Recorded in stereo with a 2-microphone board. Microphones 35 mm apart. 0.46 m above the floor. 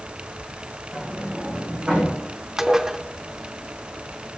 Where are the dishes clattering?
15° right (ahead or behind), 0.6 m.